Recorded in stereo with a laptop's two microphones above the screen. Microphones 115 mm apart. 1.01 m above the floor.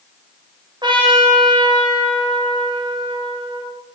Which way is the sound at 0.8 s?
40° right (ahead or behind).